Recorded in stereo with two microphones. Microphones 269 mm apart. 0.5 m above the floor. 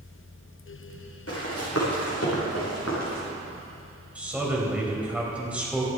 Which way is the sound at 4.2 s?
5° right (ahead or behind).